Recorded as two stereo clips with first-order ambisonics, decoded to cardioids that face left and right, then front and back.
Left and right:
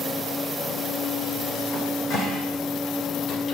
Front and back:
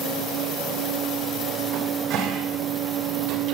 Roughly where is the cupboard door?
Behind left.